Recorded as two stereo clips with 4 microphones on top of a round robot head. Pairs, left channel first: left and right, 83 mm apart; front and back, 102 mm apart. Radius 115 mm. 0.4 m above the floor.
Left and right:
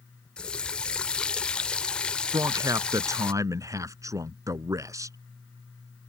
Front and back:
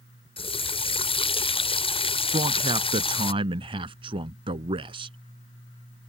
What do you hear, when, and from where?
0.4 s a running tap: 15° left
2.3 s a man speaking: 140° right